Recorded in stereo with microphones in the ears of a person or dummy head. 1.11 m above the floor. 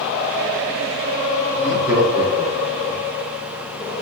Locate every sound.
1.5 s laughter: 5° left (ahead or behind), 1.7 m; by 3.0 s 45° right (ahead or behind), 2.0 m